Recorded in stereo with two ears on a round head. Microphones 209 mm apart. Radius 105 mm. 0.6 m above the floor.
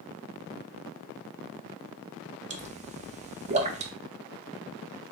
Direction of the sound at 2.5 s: 30° right (ahead or behind).